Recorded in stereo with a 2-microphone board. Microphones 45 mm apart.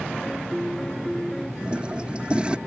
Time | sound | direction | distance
0.2 | a piano | 5° left (ahead or behind) | ?
1.6 | a toilet flushing | 25° right (ahead or behind) | ?